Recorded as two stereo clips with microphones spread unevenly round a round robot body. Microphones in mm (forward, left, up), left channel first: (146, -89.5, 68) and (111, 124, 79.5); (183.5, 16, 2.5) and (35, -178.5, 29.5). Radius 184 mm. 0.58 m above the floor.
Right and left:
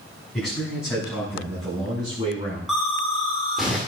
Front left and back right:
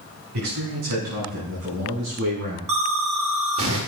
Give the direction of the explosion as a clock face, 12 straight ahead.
6 o'clock.